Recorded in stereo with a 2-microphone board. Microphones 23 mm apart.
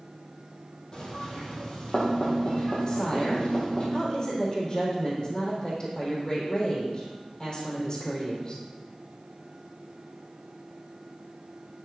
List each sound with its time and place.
0.9 s knocking: 40° left (ahead or behind), 3.5 m
2.9 s a woman speaking: 35° left (ahead or behind), 4 m